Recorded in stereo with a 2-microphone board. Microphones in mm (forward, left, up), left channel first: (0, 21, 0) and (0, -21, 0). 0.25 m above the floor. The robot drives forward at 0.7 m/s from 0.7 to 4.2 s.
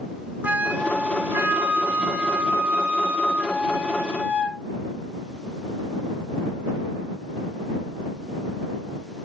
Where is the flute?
40° right (ahead or behind), 1.2 m; by 4.6 s 15° right (ahead or behind), 2.5 m.